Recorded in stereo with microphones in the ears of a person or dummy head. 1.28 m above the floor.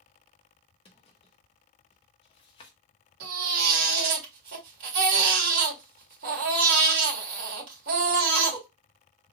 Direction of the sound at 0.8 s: 30° left (ahead or behind).